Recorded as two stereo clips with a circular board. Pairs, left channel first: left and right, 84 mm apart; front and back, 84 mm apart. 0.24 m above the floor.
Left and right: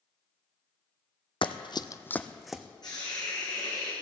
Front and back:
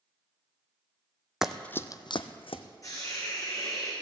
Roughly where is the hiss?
Ahead left.